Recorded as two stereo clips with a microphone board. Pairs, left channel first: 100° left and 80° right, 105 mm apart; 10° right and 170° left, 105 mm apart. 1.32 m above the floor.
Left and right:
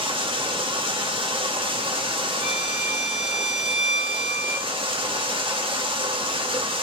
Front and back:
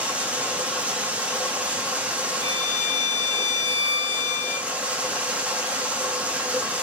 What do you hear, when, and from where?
0.0 s running water: 115° right, 1.3 m
2.4 s a violin: 135° right, 2 m